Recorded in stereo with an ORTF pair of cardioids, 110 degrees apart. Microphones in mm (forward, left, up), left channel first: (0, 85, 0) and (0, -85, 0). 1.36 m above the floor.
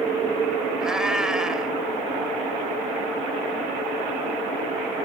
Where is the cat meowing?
5° right.